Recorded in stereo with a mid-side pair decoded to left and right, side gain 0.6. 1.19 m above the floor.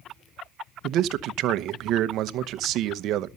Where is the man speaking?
60° right, 0.9 m.